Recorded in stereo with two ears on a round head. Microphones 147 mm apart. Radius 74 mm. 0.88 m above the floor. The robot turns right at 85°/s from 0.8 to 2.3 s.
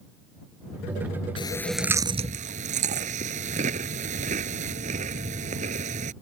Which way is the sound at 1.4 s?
30° left (ahead or behind).